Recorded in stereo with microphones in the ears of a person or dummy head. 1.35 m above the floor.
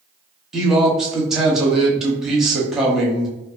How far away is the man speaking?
About 0.7 m.